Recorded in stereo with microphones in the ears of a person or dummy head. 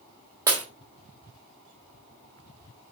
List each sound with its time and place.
0.5 s breaking glass: 20° right (ahead or behind), 1.5 m